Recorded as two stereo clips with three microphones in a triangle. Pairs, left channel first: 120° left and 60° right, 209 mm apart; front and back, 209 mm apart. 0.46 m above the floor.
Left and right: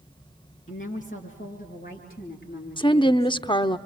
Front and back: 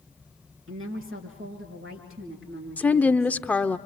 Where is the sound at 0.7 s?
175° left, 5.5 m; by 3.8 s 160° left, 6.5 m.